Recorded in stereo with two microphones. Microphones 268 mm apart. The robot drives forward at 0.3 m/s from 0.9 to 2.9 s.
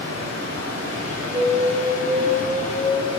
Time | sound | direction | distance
0.0 | running water | 70° right (ahead or behind) | 3.5 m
1.3 | an alarm | 60° right (ahead or behind) | 2.5 m